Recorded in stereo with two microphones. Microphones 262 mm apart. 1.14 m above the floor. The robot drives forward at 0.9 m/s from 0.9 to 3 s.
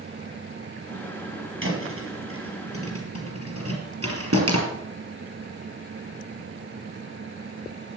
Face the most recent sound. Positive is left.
turn(degrees=-65)  # may be behind; listen again after turning